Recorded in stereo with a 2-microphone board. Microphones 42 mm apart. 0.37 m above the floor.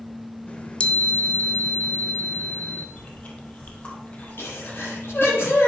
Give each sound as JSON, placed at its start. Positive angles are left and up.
{"t": 0.5, "sound": "a chime", "side_deg": 30, "distance_m": 1.2}
{"t": 3.0, "sound": "chewing", "side_deg": 35, "distance_m": 3.5}
{"t": 4.4, "sound": "a sneeze", "side_deg": 75, "distance_m": 9.0}